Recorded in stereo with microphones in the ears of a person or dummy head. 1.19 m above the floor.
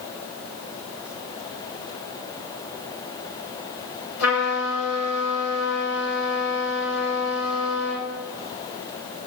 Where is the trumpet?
75° left (ahead or behind), 7.5 m.